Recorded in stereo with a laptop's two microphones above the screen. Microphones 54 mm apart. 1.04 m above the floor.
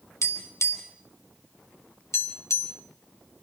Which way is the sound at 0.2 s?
65° left (ahead or behind).